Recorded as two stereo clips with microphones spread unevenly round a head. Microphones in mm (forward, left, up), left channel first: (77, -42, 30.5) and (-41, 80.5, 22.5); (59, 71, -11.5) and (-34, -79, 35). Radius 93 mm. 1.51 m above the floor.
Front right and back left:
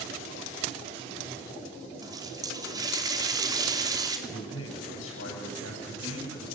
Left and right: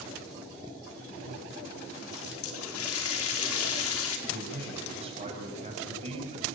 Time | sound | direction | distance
2.0 | a running tap | 65° left | 3 m
4.3 | a man speaking | 65° right | 8.5 m